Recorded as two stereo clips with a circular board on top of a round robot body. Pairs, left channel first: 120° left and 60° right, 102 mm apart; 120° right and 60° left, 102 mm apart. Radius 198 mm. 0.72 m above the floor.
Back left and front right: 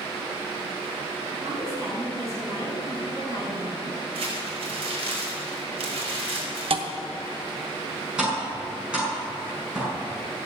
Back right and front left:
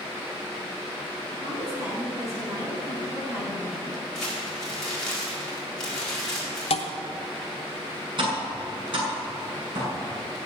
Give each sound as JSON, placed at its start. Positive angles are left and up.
{"t": 1.3, "sound": "a woman speaking", "azimuth_deg": 0, "distance_m": 6.5}
{"t": 4.2, "sound": "crumpling", "azimuth_deg": -35, "distance_m": 4.5}
{"t": 6.7, "sound": "a thud", "azimuth_deg": -90, "distance_m": 0.9}
{"t": 8.2, "sound": "tapping", "azimuth_deg": 20, "distance_m": 6.0}